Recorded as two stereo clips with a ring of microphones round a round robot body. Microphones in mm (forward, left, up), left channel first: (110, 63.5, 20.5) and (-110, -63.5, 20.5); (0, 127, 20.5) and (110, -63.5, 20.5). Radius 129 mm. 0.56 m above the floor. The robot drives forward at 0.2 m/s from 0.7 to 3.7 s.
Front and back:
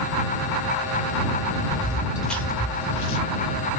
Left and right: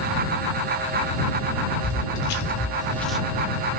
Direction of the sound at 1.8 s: 135° left.